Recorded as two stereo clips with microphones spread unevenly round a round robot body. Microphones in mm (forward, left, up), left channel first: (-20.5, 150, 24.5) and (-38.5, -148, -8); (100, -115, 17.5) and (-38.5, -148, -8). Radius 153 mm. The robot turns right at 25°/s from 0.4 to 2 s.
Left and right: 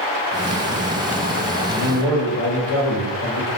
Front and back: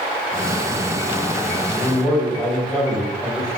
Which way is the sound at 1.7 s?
90° left.